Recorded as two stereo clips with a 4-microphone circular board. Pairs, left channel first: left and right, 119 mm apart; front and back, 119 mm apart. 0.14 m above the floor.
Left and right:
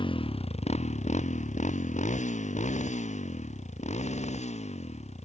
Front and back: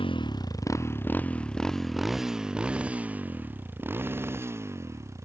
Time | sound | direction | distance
0.0 | a motorcycle | 45° left | ?